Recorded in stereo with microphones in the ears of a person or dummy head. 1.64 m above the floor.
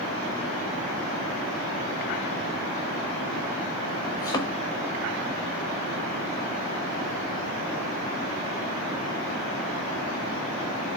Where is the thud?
20° left (ahead or behind), 1.2 m.